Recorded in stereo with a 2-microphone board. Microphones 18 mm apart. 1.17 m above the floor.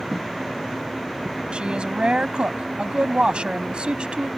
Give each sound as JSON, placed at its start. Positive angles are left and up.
{"t": 1.5, "sound": "a woman speaking", "side_deg": -85}